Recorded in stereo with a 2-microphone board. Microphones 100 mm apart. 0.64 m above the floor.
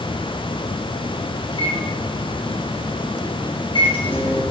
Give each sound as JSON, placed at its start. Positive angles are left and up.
{"t": 1.5, "sound": "a microwave", "side_deg": 55, "distance_m": 5.0}